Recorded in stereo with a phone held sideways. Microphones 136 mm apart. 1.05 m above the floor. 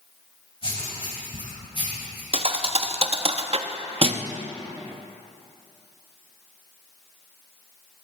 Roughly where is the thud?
Right.